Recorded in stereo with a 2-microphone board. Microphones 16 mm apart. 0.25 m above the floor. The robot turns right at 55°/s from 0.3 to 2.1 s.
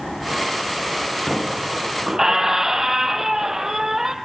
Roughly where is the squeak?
Behind.